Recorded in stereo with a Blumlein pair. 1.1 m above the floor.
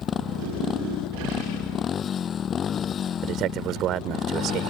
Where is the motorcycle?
25° left.